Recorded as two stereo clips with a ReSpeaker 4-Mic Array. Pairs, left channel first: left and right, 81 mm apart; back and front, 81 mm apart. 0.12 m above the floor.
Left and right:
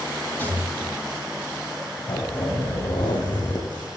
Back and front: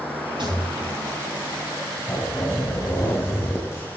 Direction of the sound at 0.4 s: 20° left.